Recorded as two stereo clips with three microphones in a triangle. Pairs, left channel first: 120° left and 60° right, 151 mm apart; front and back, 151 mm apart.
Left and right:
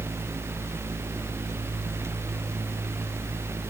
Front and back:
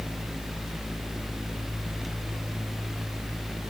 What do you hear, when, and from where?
Only background noise.